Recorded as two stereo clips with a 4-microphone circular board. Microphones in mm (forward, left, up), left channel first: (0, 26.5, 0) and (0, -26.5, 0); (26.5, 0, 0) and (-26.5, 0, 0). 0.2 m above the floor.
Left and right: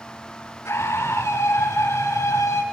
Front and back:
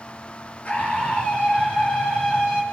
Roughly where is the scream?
Ahead left.